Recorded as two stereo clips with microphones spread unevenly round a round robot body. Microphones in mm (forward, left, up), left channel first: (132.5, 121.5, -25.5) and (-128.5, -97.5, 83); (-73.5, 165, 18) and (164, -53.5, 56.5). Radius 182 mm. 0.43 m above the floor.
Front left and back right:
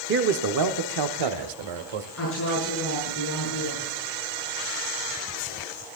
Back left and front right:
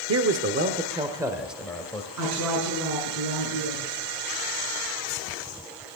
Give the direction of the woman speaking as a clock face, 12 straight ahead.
12 o'clock.